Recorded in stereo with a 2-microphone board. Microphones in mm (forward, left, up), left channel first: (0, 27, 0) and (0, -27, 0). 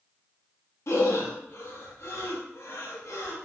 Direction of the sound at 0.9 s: 55° left (ahead or behind).